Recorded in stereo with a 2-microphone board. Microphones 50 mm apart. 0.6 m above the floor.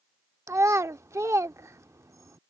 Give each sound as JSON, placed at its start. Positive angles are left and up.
{"t": 0.5, "sound": "a child speaking", "side_deg": -70}